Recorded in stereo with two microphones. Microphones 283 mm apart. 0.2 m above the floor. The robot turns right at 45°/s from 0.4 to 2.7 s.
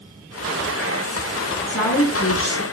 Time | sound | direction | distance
1.7 | a woman speaking | 85° left | 3 m